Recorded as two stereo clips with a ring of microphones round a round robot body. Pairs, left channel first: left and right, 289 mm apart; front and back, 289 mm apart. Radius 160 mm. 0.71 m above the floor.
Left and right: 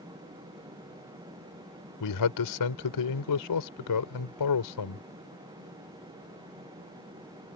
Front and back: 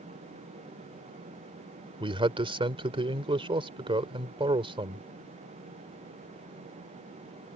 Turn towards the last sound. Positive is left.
turn(degrees=105)